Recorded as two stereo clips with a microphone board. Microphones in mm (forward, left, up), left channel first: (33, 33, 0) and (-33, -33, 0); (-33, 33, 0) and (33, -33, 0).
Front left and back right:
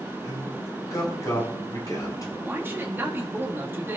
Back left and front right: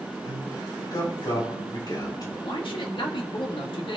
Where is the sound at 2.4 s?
160° left, 1.9 m.